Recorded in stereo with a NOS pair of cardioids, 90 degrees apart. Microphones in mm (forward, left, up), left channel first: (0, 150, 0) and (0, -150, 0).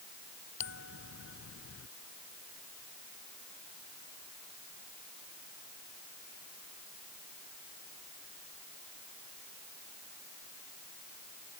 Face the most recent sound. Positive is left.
turn(degrees=45)